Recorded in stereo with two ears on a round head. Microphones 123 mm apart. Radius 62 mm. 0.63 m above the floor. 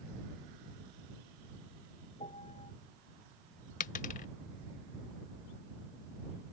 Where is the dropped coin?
65° left (ahead or behind).